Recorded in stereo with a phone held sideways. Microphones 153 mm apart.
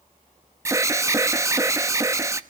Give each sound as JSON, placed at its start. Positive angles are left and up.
{"t": 0.7, "sound": "an alarm", "side_deg": -20, "distance_m": 0.9}